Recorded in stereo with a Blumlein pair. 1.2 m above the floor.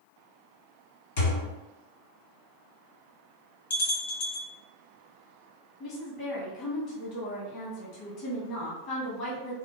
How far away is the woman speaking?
About 1.0 m.